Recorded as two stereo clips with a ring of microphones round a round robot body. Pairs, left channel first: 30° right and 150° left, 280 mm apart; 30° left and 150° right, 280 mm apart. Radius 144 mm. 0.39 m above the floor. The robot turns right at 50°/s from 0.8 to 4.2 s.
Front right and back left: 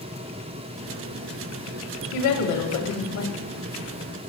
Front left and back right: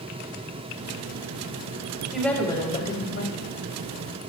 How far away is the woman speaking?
About 2.5 m.